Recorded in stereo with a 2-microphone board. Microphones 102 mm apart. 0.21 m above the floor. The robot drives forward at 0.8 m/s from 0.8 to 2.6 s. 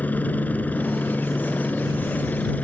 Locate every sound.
0.0 s a helicopter: 15° left (ahead or behind)